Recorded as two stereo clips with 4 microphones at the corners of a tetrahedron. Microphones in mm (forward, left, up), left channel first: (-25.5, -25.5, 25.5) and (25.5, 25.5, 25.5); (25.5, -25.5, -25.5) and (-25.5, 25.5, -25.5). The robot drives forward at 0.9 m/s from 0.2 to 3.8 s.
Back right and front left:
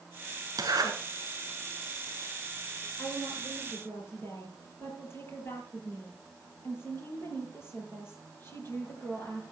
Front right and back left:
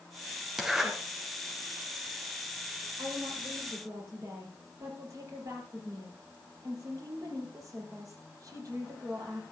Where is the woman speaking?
170° left, 5.5 m; by 9.4 s 175° left, 6 m.